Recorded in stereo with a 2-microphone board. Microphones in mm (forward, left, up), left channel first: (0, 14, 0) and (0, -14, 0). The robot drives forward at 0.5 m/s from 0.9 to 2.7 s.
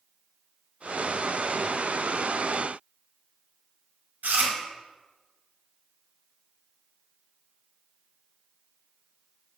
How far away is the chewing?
About 1.2 m.